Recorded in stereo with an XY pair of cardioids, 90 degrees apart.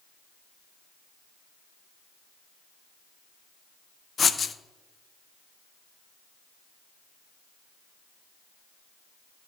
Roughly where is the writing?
Ahead left.